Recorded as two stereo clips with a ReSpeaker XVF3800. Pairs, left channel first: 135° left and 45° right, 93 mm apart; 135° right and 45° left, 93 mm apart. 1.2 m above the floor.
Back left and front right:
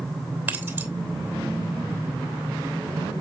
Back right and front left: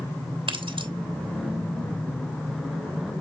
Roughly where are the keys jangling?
Ahead left.